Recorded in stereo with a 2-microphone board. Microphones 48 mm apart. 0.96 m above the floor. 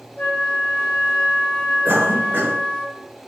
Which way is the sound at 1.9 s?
45° right (ahead or behind).